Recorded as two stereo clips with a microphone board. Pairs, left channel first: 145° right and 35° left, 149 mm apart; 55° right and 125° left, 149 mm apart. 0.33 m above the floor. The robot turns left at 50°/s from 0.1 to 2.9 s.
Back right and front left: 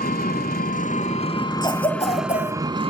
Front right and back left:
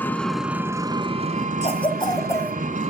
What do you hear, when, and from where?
0.0 s an engine running: 135° right, 0.9 m; by 2.9 s 85° left, 0.9 m
1.6 s a cough: 90° right, 2 m; by 2.5 s 135° right, 2 m